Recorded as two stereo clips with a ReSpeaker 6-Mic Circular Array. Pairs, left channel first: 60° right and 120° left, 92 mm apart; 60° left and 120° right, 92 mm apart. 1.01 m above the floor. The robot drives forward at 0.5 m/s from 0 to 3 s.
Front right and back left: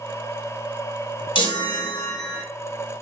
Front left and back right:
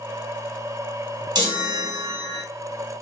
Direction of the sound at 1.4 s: 85° right.